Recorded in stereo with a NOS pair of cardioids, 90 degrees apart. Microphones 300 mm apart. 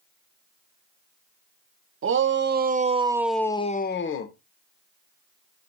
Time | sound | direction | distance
2.0 | a shout | 45° right | 1.5 m